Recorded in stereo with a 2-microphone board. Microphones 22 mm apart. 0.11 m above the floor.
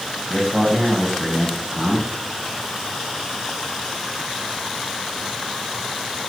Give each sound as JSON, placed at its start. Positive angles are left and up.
{"t": 0.3, "sound": "a man speaking", "side_deg": 10, "distance_m": 7.0}